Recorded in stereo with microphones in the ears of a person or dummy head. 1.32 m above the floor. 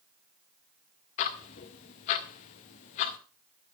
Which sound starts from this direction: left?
Ticking, at 1.2 s.